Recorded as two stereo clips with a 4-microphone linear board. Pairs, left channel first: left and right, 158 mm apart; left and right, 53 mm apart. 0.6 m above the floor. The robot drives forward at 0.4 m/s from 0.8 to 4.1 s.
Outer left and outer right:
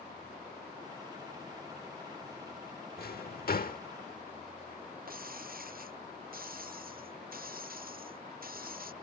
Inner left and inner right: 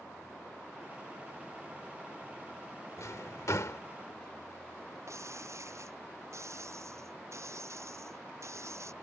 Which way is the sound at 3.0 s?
75° left (ahead or behind).